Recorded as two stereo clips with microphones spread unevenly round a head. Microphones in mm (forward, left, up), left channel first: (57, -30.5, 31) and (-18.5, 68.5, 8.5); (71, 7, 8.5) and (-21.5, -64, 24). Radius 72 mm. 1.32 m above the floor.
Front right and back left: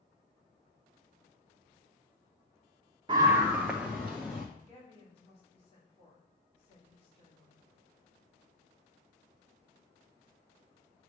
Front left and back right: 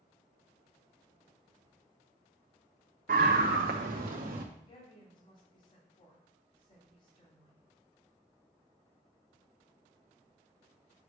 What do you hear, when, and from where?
3.1 s a scream: straight behind, 0.6 m; by 4.5 s 130° right, 1.2 m
4.6 s a woman speaking: 5° right, 3.5 m